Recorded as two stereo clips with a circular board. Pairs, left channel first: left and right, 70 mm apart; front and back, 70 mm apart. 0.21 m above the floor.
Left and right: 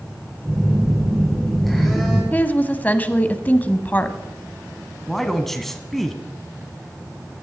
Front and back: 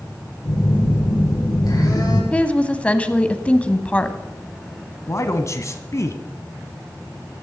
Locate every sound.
0.5 s a phone buzzing: straight ahead, 5 m
2.3 s a woman speaking: 50° left, 1.0 m
5.1 s a man speaking: 5° left, 1.4 m